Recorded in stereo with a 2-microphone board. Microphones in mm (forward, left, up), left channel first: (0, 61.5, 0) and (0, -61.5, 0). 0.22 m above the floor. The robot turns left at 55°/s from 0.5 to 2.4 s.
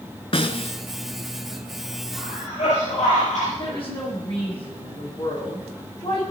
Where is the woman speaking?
50° left (ahead or behind), 8 m.